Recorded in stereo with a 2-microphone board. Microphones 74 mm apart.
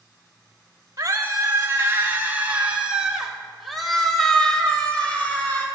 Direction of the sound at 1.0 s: 45° right (ahead or behind).